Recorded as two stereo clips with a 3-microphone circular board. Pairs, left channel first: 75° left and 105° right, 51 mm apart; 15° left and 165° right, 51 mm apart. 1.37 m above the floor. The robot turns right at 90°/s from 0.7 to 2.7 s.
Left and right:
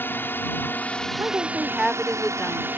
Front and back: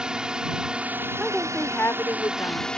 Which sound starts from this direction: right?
A woman speaking, at 1.2 s.